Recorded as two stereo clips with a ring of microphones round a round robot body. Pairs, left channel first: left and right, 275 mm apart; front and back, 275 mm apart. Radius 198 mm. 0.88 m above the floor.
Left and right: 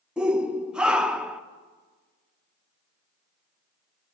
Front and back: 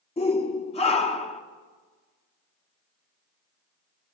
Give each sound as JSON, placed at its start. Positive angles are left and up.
{"t": 0.2, "sound": "a shout", "azimuth_deg": -10, "distance_m": 0.8}